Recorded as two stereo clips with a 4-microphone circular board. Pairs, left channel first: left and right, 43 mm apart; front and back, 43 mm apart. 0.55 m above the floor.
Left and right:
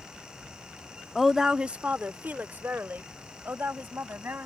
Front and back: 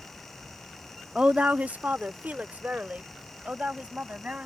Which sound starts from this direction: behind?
A woman speaking, at 1.1 s.